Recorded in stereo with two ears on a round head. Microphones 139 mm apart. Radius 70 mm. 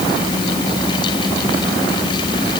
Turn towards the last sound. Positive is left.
No sound to turn to.